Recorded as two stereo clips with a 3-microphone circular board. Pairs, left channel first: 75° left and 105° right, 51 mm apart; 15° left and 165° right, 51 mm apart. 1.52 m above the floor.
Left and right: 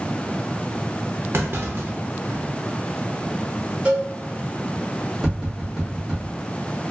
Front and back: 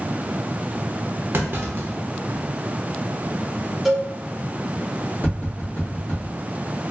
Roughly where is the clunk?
Behind right.